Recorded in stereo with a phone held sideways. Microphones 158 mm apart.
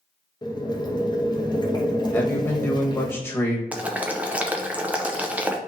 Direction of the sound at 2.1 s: 15° left (ahead or behind).